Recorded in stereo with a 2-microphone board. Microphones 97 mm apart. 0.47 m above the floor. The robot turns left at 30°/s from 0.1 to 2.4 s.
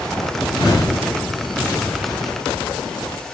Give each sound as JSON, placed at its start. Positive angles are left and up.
{"t": 0.4, "sound": "a whoosh", "side_deg": 35, "distance_m": 1.7}